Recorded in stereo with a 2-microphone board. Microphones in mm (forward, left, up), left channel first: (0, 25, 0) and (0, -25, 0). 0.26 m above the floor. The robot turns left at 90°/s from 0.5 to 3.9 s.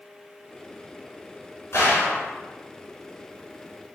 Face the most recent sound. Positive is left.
turn(degrees=-95)